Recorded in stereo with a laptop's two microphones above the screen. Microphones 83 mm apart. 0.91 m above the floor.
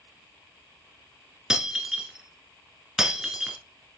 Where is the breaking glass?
10° right (ahead or behind), 1.1 m.